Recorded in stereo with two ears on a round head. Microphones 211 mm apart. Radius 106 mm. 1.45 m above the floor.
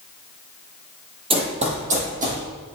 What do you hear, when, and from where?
1.3 s running footsteps: 25° right (ahead or behind), 1.8 m; by 2.4 s 35° right (ahead or behind), 3 m